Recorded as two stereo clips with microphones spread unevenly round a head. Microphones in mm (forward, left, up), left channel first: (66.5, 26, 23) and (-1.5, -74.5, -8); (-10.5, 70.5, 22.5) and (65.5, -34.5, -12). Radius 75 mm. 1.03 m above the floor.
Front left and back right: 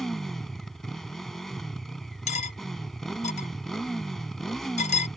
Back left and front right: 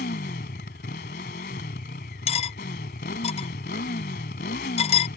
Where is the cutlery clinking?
90° left.